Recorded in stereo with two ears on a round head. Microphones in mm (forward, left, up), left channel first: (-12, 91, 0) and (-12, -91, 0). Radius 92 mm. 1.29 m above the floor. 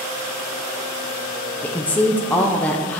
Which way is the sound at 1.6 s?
5° left (ahead or behind).